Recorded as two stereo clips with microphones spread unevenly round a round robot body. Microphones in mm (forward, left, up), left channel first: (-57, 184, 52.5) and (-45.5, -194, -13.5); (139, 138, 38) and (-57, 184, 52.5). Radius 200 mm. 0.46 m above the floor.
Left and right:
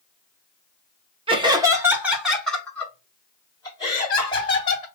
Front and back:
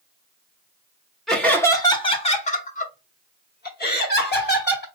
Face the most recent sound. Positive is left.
turn(degrees=10)